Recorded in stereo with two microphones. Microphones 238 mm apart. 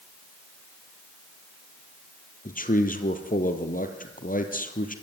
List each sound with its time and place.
2.5 s a man speaking: 35° left (ahead or behind), 2.5 m